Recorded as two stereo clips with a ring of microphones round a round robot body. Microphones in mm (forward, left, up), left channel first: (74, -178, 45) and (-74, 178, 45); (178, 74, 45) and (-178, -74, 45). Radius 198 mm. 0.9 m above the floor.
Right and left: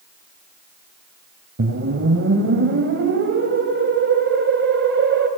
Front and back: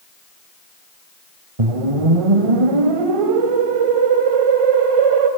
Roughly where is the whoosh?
Behind.